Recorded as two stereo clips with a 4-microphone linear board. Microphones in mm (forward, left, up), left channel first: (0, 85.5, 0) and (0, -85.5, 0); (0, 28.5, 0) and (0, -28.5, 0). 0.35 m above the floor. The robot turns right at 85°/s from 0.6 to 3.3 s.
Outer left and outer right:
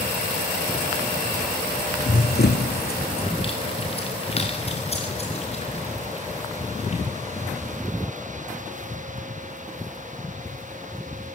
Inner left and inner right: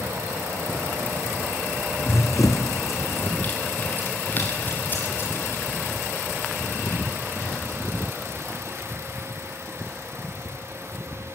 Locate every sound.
2.0 s running footsteps: 45° left (ahead or behind), 1.5 m; by 7.8 s 40° left (ahead or behind), 5 m